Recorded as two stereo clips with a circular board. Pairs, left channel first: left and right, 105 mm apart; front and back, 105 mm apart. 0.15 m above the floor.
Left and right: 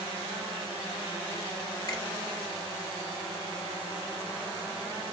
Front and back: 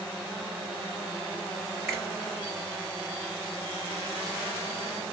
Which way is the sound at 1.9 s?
80° left.